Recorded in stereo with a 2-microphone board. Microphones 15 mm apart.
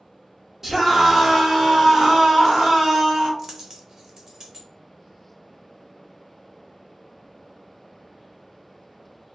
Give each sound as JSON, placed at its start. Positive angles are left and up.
{"t": 0.6, "sound": "a scream", "side_deg": -25, "distance_m": 1.2}
{"t": 3.4, "sound": "a dropped coin", "side_deg": -35, "distance_m": 0.7}